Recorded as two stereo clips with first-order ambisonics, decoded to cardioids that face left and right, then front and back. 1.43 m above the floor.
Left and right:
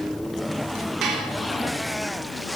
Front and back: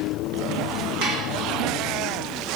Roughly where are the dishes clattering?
Behind right.